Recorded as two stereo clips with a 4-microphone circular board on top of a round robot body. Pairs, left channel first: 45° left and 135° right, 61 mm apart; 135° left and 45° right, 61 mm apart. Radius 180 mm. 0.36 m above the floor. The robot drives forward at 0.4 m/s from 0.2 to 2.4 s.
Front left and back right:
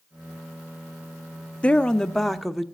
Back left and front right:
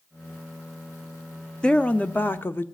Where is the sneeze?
I don't hear a sneeze.